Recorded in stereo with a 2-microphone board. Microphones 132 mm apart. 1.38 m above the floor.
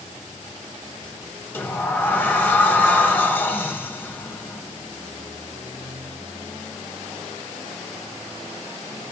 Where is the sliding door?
15° left (ahead or behind), 1.8 m.